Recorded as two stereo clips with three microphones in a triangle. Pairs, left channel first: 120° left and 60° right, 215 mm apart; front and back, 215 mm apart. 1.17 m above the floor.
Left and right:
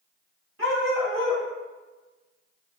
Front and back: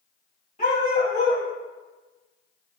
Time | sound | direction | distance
0.6 | a dog barking | 55° right | 3 m